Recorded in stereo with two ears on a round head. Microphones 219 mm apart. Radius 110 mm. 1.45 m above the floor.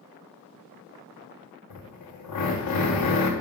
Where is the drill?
85° left, 1.4 m.